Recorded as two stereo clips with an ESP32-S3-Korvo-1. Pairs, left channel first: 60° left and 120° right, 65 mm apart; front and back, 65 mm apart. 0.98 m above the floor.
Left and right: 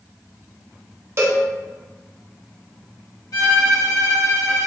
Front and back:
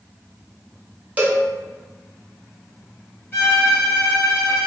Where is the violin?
50° left, 1.7 m.